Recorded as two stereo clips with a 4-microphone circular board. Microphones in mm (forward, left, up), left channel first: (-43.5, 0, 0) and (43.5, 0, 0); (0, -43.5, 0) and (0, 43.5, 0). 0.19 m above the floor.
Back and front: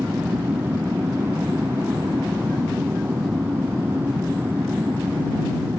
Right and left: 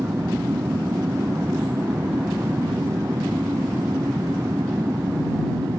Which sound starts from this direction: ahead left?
An aircraft, at 0.0 s.